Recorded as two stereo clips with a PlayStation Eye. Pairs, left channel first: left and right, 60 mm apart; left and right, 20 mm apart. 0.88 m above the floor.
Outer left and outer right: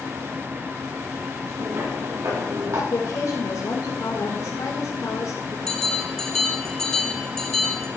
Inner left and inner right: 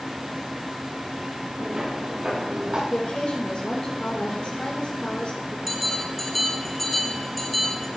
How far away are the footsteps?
About 7 m.